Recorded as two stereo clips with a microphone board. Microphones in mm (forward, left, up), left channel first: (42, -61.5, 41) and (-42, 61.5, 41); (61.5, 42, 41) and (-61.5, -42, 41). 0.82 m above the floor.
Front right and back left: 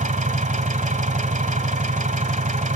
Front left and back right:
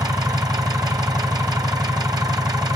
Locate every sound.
0.0 s an engine running: 155° left, 1.2 m